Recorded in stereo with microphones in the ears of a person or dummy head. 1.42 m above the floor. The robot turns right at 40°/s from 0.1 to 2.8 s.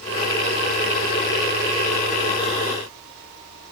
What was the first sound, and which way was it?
Only background noise.